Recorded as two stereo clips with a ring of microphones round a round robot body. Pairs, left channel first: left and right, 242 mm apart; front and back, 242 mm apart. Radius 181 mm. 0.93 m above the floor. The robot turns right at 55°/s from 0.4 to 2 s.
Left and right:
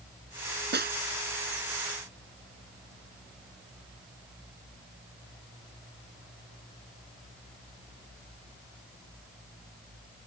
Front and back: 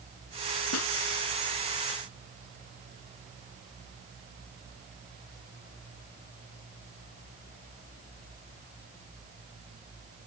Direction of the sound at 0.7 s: 45° right.